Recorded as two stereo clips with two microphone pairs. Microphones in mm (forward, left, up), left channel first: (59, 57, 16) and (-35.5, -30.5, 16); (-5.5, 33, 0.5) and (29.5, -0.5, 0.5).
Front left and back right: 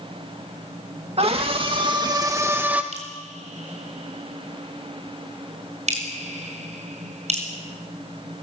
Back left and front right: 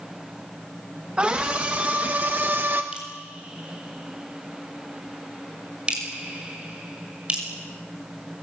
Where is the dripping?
110° right, 5.5 m.